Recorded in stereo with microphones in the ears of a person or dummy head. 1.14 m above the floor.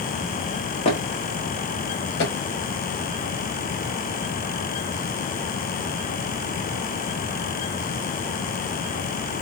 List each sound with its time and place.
0.8 s footsteps: 30° left (ahead or behind), 1.5 m; by 2.3 s 55° left (ahead or behind), 1.9 m